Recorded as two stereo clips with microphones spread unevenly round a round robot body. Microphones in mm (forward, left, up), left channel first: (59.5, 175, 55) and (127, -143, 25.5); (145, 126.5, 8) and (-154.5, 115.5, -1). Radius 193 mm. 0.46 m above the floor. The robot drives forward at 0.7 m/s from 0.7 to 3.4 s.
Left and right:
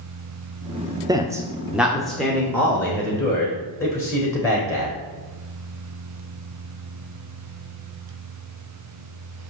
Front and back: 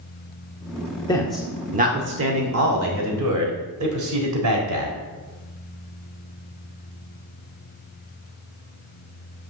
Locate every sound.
1.1 s a man speaking: 50° right, 0.7 m; by 5.0 s 175° right, 1.6 m